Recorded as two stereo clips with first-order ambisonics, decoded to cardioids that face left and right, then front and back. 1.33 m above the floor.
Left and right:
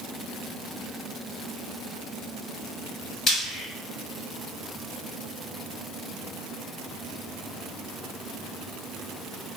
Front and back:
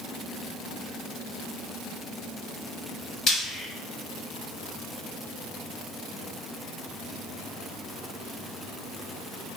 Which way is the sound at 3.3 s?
45° left.